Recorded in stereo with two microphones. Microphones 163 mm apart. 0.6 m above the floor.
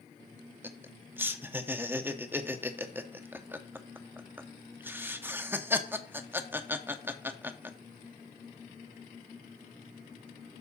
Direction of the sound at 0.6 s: 15° right (ahead or behind).